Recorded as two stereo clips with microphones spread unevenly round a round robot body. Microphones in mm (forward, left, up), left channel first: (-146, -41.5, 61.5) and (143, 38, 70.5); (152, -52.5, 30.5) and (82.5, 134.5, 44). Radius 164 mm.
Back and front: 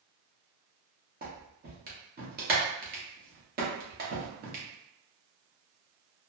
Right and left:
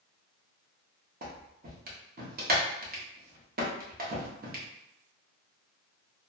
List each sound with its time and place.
1.2 s a clap: 70° left, 1.1 m